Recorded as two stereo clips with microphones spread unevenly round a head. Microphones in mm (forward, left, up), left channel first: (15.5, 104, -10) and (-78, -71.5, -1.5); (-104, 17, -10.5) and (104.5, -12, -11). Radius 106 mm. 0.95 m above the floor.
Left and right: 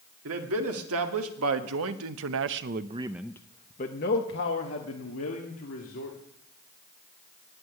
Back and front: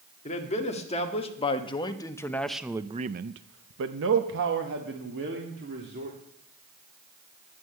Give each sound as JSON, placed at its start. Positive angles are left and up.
{"t": 0.2, "sound": "a man speaking", "azimuth_deg": -130, "distance_m": 2.0}